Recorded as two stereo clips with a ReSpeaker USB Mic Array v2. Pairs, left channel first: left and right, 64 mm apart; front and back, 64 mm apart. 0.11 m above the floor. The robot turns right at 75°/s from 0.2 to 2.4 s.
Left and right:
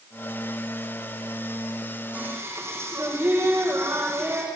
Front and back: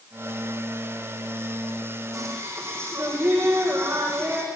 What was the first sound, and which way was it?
Singing, 155° right.